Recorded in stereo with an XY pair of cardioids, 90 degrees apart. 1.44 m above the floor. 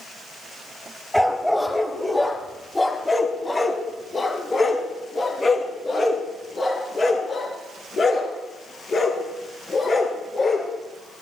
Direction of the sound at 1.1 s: Straight ahead.